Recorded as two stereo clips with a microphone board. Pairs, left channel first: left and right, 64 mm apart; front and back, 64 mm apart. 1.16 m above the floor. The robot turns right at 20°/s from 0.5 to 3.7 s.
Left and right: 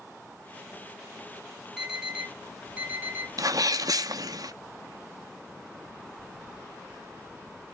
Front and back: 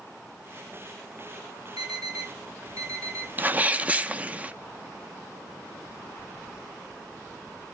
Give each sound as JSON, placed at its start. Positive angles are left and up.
{"t": 1.8, "sound": "an alarm", "azimuth_deg": -175, "distance_m": 5.5}
{"t": 3.4, "sound": "a sneeze", "azimuth_deg": -120, "distance_m": 0.7}